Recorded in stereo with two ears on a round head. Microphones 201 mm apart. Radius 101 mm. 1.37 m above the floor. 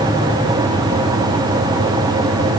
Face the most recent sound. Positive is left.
No sound to turn to.